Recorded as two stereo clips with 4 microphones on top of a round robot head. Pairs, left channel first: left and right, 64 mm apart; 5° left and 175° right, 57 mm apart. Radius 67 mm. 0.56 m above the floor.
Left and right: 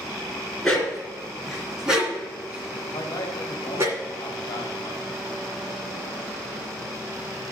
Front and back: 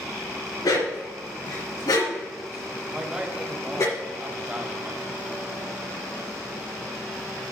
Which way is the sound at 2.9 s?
120° left.